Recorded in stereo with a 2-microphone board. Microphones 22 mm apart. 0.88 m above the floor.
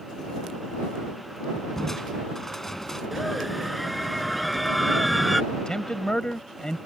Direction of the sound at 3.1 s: Centre (ahead or behind).